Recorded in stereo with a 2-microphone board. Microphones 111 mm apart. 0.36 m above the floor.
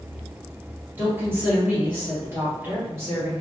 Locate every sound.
1.0 s a woman speaking: 20° right (ahead or behind), 1.6 m